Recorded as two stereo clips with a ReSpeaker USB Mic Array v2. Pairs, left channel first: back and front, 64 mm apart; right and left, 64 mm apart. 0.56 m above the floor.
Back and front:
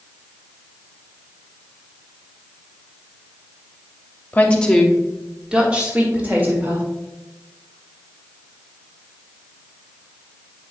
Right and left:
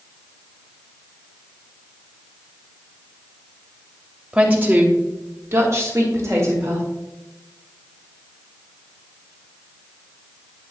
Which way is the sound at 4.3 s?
140° left.